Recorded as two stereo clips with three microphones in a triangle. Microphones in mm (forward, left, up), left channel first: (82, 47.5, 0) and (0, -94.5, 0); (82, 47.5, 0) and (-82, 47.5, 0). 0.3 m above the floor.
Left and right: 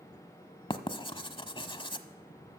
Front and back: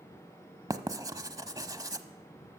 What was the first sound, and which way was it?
Writing, 115° left.